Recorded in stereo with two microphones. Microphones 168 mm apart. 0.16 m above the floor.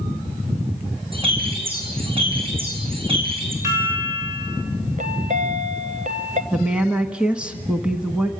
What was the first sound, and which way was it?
A bird, 35° right (ahead or behind).